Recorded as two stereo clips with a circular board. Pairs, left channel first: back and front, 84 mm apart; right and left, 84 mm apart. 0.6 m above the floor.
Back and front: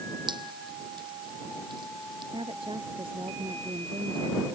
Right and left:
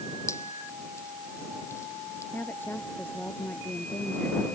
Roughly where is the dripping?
Ahead right.